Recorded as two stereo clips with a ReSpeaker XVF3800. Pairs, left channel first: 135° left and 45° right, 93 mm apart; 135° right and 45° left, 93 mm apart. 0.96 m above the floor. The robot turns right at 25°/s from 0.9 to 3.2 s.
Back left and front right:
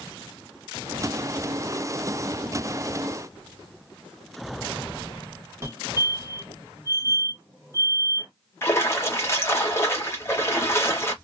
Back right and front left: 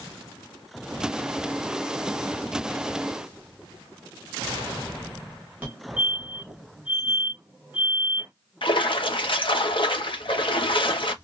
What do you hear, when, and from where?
5.6 s a fire alarm: 10° right, 1.6 m
8.6 s a splash: 160° right, 1.0 m